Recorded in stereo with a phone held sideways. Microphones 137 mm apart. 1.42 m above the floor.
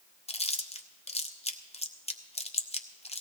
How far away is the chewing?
About 0.8 m.